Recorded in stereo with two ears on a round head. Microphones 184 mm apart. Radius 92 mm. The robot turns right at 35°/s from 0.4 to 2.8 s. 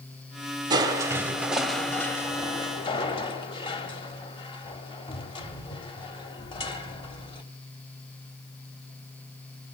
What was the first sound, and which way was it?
Crushing, 35° right.